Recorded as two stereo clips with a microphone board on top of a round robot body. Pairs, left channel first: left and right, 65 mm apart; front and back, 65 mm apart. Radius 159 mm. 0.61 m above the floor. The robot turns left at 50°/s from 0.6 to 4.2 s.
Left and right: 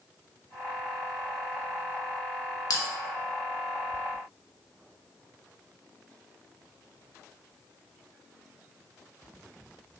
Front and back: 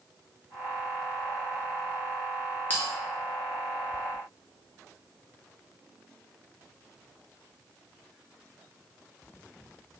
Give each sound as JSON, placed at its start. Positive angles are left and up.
{"t": 2.7, "sound": "a bell", "azimuth_deg": 65, "distance_m": 0.5}